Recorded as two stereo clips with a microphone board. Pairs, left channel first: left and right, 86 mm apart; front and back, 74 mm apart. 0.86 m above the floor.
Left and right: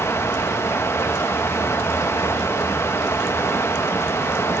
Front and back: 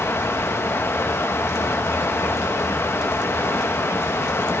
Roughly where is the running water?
Ahead left.